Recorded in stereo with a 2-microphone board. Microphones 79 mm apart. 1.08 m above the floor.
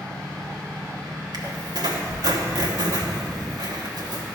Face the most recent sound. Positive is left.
turn(degrees=-60)  # may be behind; listen again after turning